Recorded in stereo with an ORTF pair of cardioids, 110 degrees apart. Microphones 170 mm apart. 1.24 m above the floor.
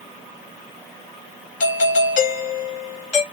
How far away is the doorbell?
About 1.9 m.